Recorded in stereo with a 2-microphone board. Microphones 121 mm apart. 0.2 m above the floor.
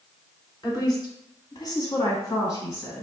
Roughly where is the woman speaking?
Left.